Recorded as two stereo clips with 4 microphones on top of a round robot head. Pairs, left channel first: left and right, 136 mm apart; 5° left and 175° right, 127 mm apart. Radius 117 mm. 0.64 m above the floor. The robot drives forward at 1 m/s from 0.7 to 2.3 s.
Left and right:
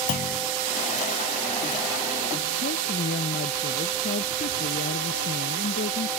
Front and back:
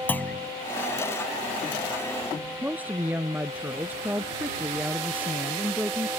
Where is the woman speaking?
110° left.